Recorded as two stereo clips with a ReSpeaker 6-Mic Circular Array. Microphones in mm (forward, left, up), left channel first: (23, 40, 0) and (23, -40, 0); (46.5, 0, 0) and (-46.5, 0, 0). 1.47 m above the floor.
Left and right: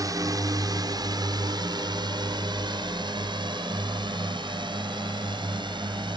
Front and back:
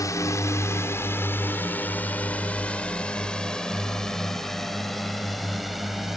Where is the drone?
50° right; by 6.2 s 95° right.